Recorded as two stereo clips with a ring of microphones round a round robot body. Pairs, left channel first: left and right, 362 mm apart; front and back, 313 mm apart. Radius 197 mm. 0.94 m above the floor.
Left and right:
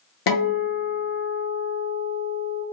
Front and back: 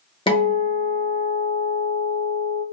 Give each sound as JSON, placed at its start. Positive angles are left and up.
{"t": 0.3, "sound": "a guitar", "azimuth_deg": 70, "distance_m": 0.8}